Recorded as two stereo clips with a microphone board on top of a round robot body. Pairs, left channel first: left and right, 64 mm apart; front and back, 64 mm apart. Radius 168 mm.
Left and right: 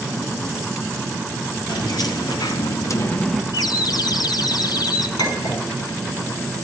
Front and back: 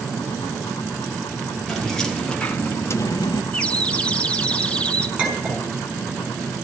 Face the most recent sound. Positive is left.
turn(degrees=105)